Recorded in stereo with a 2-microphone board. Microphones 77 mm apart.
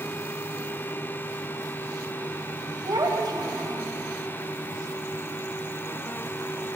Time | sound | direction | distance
2.8 | a child speaking | 70° right (ahead or behind) | 3.5 m